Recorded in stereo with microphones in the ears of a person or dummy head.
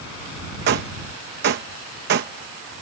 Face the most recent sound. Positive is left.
turn(degrees=-50)  # may be behind; listen again after turning